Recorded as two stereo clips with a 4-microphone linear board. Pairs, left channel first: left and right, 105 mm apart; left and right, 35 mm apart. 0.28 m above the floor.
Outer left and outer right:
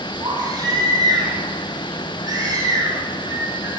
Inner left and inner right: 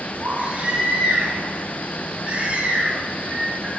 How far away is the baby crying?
About 8 m.